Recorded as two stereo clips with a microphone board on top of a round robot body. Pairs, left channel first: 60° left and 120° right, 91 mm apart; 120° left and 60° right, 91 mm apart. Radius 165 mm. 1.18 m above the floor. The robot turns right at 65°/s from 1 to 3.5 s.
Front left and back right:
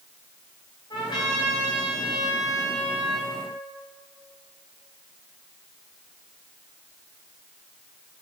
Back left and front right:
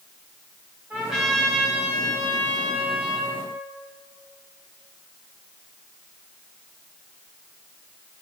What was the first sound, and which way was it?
A trumpet, 15° left.